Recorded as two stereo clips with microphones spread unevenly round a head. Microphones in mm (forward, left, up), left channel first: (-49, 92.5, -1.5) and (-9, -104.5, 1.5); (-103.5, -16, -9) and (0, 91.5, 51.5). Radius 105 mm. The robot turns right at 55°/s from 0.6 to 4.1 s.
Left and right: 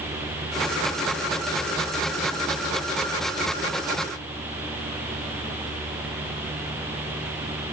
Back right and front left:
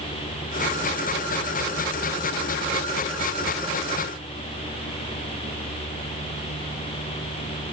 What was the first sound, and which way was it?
Only background noise.